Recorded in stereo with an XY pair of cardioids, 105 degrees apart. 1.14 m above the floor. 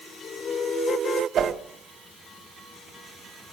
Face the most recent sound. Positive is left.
turn(degrees=-60)